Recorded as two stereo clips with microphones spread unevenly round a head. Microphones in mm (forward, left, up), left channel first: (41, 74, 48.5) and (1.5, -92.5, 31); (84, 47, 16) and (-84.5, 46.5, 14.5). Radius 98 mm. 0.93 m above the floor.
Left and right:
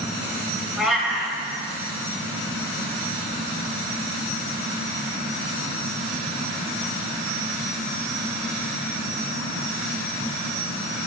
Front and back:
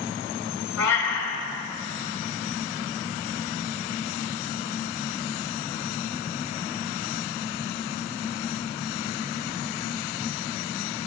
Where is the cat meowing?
15° right, 2.5 m.